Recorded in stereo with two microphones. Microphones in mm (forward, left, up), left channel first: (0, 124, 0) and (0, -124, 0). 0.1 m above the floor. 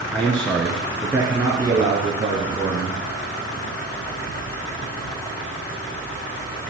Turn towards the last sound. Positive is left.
turn(degrees=-30)  # may be behind; listen again after turning